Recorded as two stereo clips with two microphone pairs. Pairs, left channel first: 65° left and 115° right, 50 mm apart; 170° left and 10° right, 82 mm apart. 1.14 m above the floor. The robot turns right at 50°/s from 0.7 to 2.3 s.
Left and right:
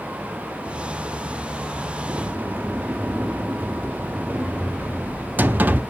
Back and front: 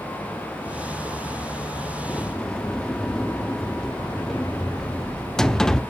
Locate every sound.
2.1 s a sliding door: 120° right, 0.7 m; by 5.8 s 110° right, 0.7 m